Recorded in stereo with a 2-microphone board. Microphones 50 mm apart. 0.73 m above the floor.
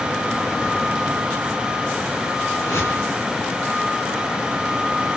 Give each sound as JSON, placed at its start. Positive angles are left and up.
{"t": 2.5, "sound": "a whoosh", "side_deg": 70, "distance_m": 3.0}